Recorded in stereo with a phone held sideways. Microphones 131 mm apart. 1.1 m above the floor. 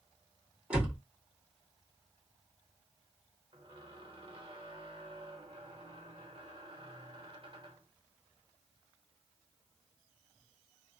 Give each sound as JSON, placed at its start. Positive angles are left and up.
{"t": 0.7, "sound": "a door slam", "side_deg": -10, "distance_m": 1.5}
{"t": 3.5, "sound": "a squeak", "side_deg": -45, "distance_m": 0.8}